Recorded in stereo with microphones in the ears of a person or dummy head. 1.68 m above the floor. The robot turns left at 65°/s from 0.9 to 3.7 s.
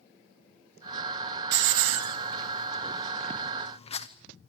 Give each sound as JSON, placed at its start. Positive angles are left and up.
{"t": 1.5, "sound": "a hiss", "side_deg": -65, "distance_m": 0.8}